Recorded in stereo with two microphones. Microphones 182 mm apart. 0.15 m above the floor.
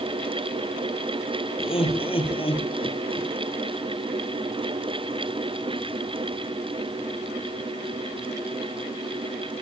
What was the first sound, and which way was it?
Laughter, 30° left (ahead or behind).